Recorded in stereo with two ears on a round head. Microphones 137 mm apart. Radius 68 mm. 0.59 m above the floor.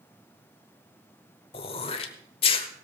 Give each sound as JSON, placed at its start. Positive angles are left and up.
{"t": 1.5, "sound": "throat clearing", "side_deg": 35, "distance_m": 1.1}